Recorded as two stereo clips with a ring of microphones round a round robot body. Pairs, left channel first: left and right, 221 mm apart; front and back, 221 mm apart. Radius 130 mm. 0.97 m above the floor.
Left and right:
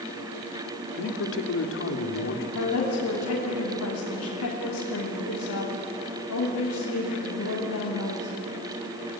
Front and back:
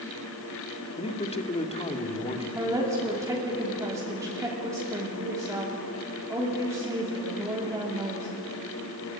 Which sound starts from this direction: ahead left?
A man speaking, at 1.0 s.